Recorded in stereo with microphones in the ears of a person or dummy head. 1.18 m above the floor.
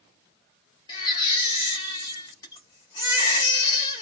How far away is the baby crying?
About 0.9 m.